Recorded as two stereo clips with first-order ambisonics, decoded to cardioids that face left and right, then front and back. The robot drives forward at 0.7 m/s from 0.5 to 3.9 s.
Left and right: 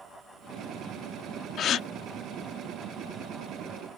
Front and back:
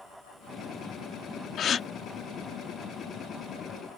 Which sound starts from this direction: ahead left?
A gasp, at 1.6 s.